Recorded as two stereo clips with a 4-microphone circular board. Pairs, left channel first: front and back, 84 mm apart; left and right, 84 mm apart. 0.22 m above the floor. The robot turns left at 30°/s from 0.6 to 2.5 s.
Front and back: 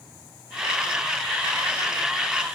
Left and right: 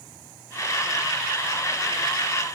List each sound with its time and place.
Only background noise.